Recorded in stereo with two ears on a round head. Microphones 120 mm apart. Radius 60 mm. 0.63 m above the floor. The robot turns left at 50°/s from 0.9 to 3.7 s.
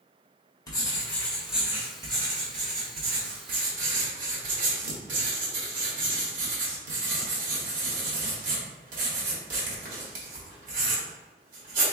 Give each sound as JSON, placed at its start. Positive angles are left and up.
{"t": 0.7, "sound": "writing", "azimuth_deg": 25, "distance_m": 1.5}